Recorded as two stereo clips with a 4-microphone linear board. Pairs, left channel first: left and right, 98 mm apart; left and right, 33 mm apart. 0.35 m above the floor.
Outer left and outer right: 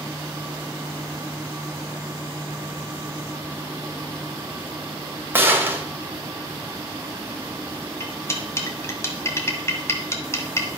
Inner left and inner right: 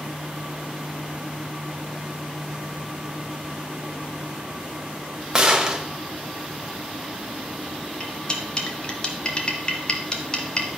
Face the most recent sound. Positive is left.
turn(degrees=25)  # may be behind; listen again after turning